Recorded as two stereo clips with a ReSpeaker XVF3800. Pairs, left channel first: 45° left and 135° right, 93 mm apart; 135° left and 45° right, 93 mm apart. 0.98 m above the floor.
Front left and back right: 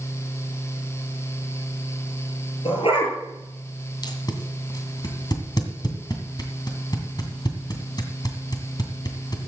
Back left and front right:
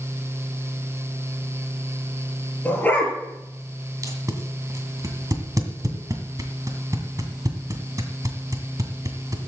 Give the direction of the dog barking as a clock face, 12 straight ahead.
10 o'clock.